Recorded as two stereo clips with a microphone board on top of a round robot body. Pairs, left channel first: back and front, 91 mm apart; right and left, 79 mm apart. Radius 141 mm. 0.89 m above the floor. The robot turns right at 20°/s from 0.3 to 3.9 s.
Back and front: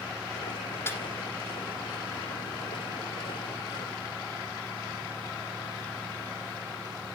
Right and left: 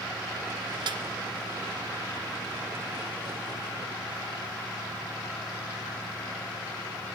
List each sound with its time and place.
0.9 s a snare drum: 115° left, 2 m; by 1.0 s 120° left, 2 m